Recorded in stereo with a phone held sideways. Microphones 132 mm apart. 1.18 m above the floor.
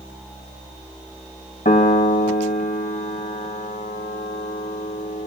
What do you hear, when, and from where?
1.6 s a piano: 80° left, 3.5 m